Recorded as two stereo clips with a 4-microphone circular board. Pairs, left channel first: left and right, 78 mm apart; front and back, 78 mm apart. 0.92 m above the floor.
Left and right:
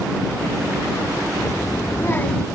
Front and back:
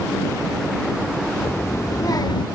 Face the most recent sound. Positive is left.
turn(degrees=5)